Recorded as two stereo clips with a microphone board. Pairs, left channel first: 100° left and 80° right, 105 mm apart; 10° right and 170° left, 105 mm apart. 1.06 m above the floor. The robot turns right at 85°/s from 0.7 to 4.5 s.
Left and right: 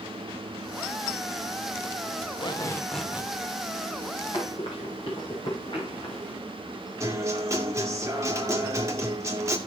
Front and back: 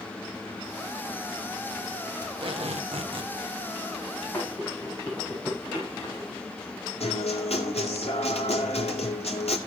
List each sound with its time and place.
2.2 s tape being pulled: 120° left, 1.6 m; by 3.3 s 145° right, 1.6 m
4.3 s running footsteps: 55° left, 7 m
7.0 s a guitar: 15° right, 2.5 m